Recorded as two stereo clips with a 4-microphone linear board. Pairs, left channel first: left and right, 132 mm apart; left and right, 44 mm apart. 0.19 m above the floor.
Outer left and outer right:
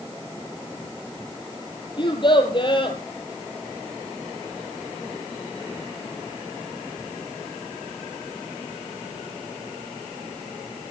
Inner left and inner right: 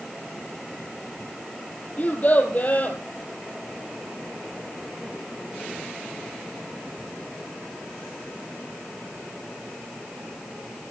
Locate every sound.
2.0 s a child speaking: 40° left (ahead or behind), 3.5 m